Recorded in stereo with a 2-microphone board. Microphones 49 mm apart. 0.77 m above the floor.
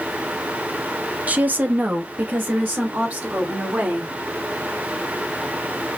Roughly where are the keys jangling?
I don't hear keys jangling.